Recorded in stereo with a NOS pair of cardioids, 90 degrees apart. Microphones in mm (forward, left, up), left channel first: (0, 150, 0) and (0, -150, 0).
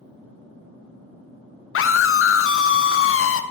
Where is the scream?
45° left, 0.9 m.